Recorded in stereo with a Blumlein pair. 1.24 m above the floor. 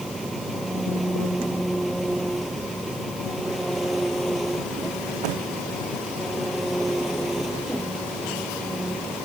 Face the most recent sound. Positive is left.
turn(degrees=-5)